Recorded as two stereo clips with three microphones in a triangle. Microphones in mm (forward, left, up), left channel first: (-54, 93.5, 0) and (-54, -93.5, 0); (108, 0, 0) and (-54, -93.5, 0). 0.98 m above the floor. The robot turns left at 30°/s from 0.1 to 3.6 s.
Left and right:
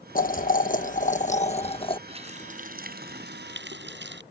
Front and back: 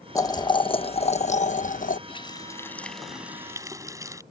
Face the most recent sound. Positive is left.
turn(degrees=-75)